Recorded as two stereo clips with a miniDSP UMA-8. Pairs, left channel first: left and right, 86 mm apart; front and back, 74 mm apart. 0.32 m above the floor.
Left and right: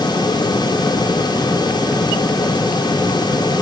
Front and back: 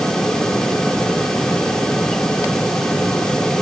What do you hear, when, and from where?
Only background noise.